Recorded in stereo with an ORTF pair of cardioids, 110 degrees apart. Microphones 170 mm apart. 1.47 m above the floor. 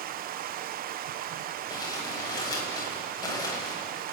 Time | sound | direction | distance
0.0 | running water | 60° right | 0.8 m
1.7 | crumpling | 25° left | 7 m